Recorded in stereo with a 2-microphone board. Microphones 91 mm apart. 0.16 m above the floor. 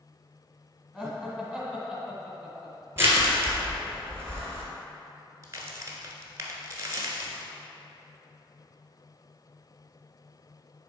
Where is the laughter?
5° left (ahead or behind), 1.7 m.